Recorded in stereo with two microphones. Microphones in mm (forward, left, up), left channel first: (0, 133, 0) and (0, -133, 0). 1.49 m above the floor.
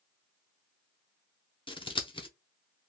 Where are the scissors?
20° left (ahead or behind), 0.5 m.